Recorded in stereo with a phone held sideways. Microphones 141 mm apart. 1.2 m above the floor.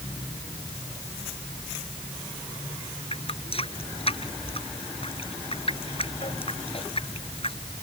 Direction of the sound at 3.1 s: 45° left (ahead or behind).